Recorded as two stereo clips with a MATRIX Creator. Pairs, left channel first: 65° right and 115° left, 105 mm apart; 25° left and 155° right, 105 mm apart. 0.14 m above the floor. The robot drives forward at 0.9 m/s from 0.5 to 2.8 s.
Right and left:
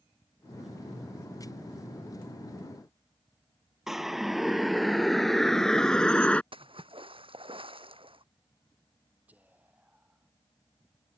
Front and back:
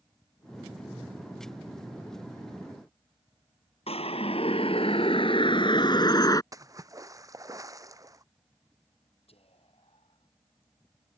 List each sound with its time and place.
3.9 s a siren: 25° left; by 6.4 s 5° left
6.5 s a splash: 145° left
9.3 s whispering: 35° left